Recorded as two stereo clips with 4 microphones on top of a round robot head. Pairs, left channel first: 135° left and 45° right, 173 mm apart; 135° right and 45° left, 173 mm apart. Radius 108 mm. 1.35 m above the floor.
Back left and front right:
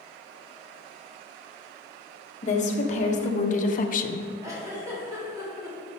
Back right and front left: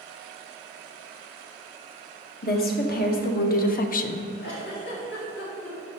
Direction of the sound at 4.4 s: 115° right.